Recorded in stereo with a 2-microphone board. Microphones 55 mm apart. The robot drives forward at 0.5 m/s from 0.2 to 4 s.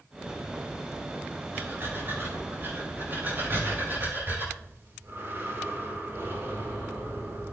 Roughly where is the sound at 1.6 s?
Right.